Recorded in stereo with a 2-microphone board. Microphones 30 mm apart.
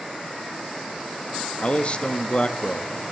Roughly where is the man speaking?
Left.